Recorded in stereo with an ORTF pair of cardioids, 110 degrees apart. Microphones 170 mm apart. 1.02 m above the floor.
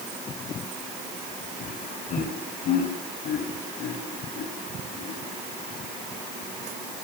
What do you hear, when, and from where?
1.6 s laughter: 55° left, 5 m; by 5.2 s 70° left, 9 m